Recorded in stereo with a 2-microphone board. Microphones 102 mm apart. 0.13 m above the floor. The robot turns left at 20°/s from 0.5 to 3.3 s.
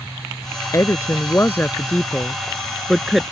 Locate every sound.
0.7 s a woman speaking: 30° left (ahead or behind); by 3.2 s 5° right (ahead or behind)